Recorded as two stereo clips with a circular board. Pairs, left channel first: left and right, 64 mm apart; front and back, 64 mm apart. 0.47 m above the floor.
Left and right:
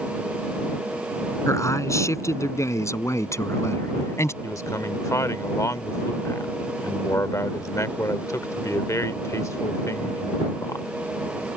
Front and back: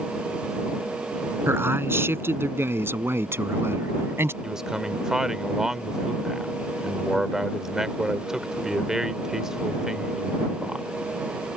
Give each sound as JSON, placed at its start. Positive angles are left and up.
{"t": 1.5, "sound": "a man speaking", "azimuth_deg": 130}
{"t": 4.4, "sound": "a man speaking", "azimuth_deg": 100}